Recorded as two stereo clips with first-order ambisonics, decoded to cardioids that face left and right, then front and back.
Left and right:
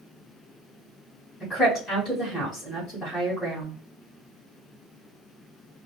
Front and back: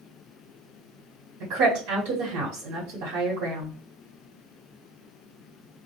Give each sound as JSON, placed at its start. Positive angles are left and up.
{"t": 1.4, "sound": "a woman speaking", "azimuth_deg": 165, "distance_m": 1.1}